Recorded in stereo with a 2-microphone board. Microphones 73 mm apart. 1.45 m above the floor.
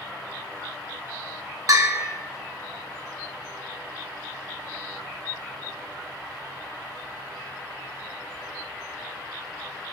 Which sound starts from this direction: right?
A bell, at 1.7 s.